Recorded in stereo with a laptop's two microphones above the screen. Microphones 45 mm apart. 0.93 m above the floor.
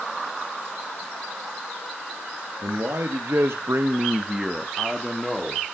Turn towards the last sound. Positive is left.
turn(degrees=10)  # may be behind; listen again after turning